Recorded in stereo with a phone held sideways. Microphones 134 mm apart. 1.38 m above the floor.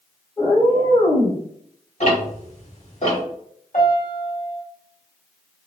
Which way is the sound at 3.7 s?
70° left (ahead or behind).